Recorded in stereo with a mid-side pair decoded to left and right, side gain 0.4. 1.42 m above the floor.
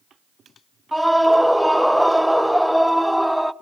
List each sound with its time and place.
0.9 s a scream: straight ahead, 0.7 m